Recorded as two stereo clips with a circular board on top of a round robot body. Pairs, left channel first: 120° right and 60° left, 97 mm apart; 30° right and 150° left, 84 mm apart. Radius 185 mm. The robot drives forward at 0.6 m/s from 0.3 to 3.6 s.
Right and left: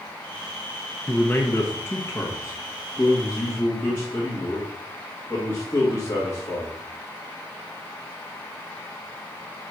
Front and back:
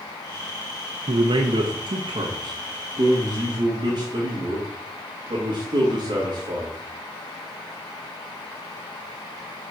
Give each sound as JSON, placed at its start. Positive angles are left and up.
{"t": 1.1, "sound": "a man speaking", "azimuth_deg": 165, "distance_m": 0.6}